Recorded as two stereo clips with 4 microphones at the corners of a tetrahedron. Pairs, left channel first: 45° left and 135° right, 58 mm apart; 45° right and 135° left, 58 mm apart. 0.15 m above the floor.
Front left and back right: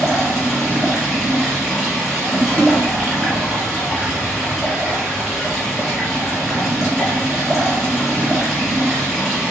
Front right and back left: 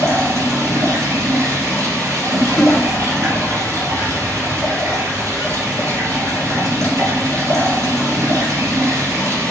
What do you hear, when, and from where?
0.0 s running water: 145° left, 2 m
2.6 s a snare drum: 125° right, 1.0 m